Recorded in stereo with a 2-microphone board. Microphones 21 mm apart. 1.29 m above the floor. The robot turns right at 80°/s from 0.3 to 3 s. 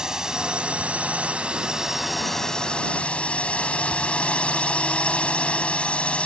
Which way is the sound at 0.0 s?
150° right.